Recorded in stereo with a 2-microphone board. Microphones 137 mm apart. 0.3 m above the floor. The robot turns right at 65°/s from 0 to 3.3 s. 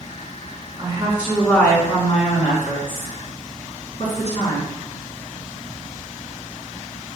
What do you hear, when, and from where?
0.8 s a woman speaking: 40° right, 3 m; by 4.6 s 125° left, 3 m